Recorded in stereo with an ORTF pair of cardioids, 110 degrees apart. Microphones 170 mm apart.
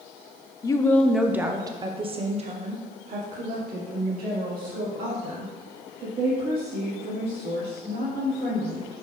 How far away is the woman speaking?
About 0.6 m.